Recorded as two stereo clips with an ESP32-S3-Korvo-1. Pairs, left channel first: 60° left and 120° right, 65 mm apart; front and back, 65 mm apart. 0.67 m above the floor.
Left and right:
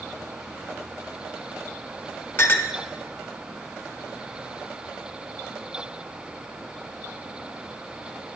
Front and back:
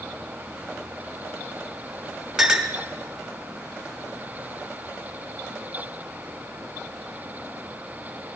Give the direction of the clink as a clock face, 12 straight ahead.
9 o'clock.